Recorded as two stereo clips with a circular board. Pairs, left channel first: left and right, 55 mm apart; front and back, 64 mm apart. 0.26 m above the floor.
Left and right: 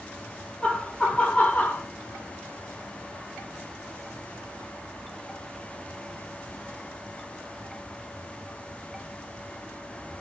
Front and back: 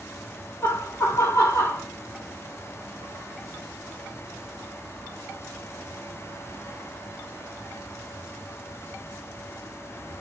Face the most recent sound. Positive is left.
turn(degrees=40)